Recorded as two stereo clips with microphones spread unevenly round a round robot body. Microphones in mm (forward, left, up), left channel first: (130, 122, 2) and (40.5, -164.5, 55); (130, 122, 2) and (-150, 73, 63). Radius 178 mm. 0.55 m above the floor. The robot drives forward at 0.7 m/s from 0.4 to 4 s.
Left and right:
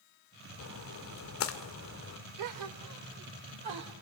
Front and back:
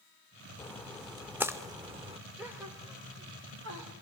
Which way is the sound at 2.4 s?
80° right.